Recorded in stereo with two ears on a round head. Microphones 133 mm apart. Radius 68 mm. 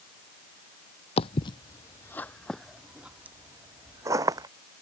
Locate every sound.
1.2 s footsteps: 40° left (ahead or behind); by 4.5 s 25° right (ahead or behind)